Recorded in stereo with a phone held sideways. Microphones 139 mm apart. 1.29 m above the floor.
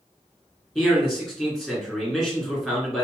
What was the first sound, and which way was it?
A man speaking, centre (ahead or behind).